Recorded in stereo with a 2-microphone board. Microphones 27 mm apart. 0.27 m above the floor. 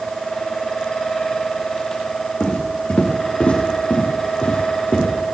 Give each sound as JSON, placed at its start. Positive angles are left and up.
{"t": 2.4, "sound": "footsteps", "side_deg": 65, "distance_m": 5.0}